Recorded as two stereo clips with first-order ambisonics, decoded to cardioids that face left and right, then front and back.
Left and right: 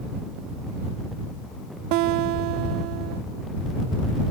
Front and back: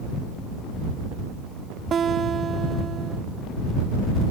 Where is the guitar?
115° right.